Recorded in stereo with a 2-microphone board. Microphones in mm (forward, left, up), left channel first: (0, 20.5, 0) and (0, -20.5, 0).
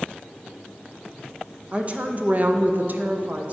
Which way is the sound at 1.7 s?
30° right (ahead or behind).